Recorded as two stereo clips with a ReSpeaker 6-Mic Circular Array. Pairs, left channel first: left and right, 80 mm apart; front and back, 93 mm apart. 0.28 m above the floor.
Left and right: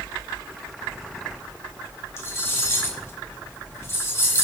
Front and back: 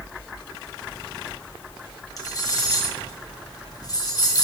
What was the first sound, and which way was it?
Cutlery clinking, 35° left.